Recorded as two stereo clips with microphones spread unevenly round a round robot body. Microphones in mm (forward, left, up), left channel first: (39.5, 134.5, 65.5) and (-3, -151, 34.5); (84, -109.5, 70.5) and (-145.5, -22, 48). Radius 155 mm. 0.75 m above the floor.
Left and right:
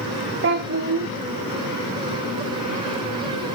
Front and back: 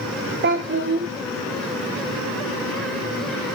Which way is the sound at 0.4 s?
155° right.